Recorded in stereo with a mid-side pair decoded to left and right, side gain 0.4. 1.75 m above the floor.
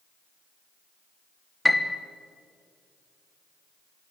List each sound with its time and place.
1.6 s a piano: 10° left, 1.7 m